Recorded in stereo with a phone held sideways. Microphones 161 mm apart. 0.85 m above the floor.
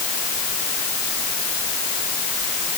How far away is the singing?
I don't hear singing.